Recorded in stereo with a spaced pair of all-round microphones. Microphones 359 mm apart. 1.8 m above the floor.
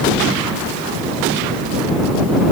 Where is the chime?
I don't hear a chime.